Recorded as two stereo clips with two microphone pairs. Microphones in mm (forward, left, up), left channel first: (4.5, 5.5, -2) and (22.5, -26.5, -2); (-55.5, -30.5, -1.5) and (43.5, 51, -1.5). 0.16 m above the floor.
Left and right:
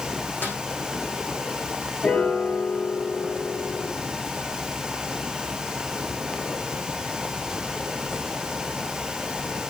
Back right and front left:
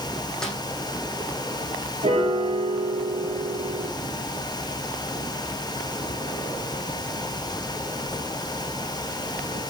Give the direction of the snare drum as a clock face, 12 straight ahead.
8 o'clock.